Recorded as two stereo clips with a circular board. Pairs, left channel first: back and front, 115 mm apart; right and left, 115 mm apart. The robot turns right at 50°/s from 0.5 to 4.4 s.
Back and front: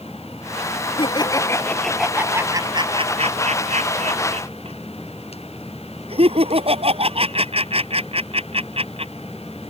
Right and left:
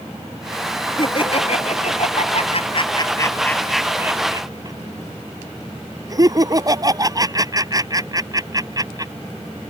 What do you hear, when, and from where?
1.0 s laughter: 140° right; by 9.1 s 35° left